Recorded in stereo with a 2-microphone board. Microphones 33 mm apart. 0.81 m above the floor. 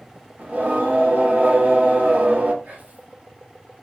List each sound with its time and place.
0.4 s singing: 55° right (ahead or behind), 1.7 m
2.6 s whispering: 60° right (ahead or behind), 3.5 m